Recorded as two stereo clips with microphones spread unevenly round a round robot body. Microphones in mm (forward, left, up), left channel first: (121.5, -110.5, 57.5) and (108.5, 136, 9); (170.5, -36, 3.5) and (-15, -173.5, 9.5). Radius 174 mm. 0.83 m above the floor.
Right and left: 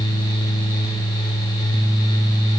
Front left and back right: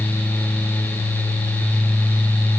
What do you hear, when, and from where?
Only background noise.